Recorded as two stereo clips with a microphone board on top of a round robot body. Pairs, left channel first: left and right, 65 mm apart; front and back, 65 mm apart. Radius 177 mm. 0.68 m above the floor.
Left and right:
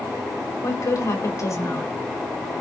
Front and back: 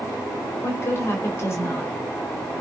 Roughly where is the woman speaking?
Ahead left.